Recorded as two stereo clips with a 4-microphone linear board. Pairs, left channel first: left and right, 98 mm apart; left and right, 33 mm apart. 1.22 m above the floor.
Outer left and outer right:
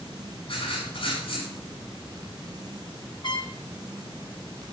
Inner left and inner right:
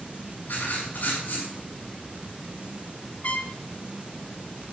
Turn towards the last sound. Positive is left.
turn(degrees=50)  # may be behind; listen again after turning